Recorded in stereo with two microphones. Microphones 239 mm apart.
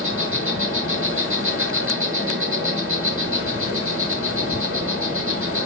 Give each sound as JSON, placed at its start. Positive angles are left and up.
{"t": 0.0, "sound": "an insect", "side_deg": -65, "distance_m": 6.5}